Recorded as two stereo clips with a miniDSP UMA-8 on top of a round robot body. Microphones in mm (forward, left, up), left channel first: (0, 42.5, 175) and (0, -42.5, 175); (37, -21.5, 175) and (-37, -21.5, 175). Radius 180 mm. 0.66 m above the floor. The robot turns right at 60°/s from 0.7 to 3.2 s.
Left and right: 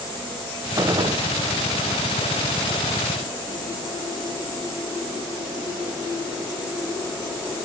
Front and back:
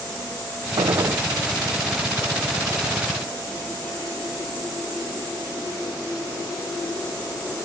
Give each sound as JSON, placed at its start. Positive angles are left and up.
{"t": 0.8, "sound": "a gunshot", "azimuth_deg": -145}